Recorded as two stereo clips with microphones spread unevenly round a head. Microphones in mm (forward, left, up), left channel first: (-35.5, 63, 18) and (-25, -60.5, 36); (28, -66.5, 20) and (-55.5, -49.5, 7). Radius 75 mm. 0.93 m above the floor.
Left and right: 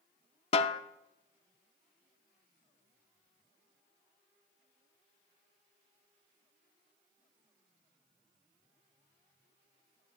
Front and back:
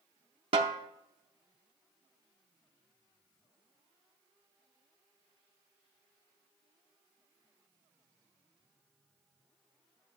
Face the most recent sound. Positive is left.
turn(degrees=135)